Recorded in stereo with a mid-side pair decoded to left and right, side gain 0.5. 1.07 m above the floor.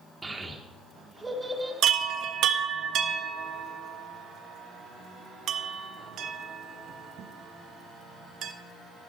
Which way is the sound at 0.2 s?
20° right.